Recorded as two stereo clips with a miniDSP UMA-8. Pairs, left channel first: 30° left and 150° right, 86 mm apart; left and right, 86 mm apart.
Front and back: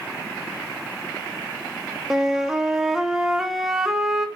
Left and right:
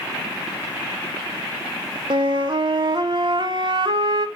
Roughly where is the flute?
Ahead right.